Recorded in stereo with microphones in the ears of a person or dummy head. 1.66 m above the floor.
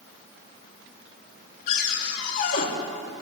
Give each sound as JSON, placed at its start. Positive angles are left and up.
{"t": 1.7, "sound": "a cupboard door", "side_deg": 55, "distance_m": 2.5}